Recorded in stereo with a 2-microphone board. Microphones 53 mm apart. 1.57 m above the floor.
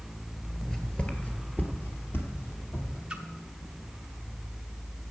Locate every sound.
0.6 s footsteps: 5° left (ahead or behind), 1.6 m; by 3.0 s 55° left (ahead or behind), 3 m
3.1 s a splash: 15° right (ahead or behind), 1.1 m